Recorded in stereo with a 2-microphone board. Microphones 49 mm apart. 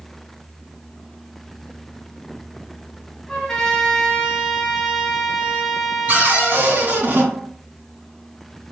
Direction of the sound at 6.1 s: 45° right (ahead or behind).